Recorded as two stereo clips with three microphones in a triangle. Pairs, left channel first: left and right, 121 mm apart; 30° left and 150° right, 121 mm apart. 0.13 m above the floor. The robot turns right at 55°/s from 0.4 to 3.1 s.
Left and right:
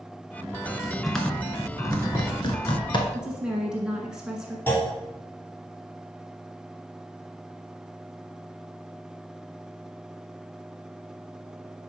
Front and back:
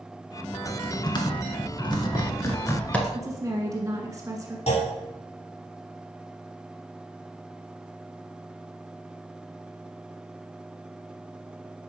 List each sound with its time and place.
0.4 s typing on a keyboard: 35° right, 1.2 m; by 3.0 s 110° left, 1.2 m
3.1 s a woman speaking: 165° right, 1.2 m
4.7 s a clunk: 15° left, 1.7 m